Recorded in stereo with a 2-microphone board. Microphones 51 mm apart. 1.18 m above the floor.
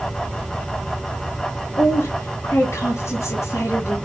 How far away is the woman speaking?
About 1.5 m.